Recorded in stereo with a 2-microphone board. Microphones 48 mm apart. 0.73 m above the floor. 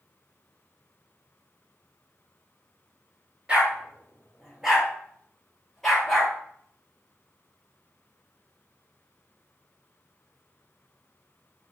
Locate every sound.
3.5 s a dog barking: 20° right (ahead or behind), 2.5 m; by 6.3 s 5° left (ahead or behind), 4 m